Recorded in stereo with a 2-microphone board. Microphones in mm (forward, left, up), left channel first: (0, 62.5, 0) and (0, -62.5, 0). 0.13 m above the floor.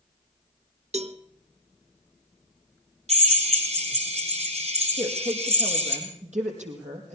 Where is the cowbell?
60° right (ahead or behind), 0.8 m.